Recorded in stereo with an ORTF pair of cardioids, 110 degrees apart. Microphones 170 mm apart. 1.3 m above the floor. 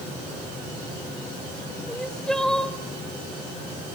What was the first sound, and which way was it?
Crying, 5° left.